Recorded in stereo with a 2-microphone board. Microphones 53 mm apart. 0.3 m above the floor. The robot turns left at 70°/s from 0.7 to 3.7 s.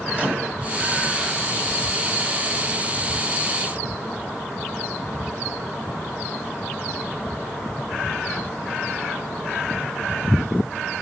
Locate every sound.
0.1 s a microwave: 30° right (ahead or behind), 1.0 m